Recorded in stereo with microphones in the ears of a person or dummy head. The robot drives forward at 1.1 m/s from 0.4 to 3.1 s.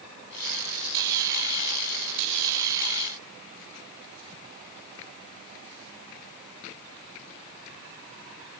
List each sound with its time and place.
Only background noise.